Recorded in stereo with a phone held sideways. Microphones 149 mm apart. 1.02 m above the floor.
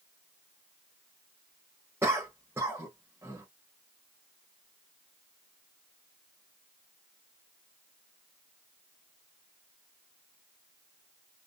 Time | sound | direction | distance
2.0 | a cough | 15° right (ahead or behind) | 1.1 m